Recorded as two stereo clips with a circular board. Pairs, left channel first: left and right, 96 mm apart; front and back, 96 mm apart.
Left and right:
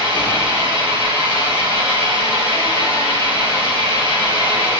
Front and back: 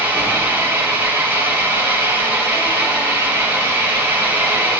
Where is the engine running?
115° right, 3.5 m.